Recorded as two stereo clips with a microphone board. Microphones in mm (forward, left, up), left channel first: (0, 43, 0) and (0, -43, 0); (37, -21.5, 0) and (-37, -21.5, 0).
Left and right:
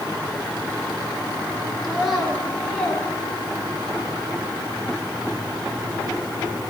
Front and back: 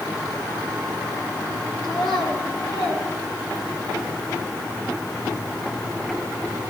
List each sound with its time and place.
1.8 s a child speaking: straight ahead, 3 m; by 4.0 s 35° left, 2.5 m